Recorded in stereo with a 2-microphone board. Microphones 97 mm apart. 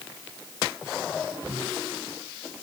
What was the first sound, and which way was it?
Only background noise.